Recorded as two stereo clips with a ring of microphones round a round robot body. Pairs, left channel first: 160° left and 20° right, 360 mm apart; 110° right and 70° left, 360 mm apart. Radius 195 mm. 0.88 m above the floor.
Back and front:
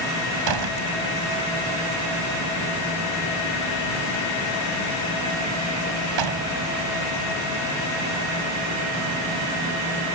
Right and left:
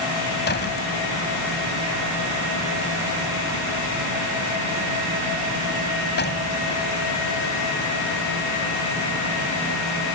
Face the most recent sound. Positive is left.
turn(degrees=-50)